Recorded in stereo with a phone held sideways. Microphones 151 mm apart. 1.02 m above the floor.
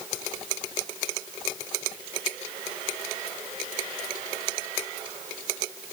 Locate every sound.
Only background noise.